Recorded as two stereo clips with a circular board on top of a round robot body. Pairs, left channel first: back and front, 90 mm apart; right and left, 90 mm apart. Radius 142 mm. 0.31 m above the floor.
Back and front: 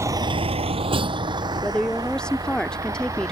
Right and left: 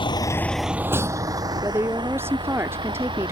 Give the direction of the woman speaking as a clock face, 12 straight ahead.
8 o'clock.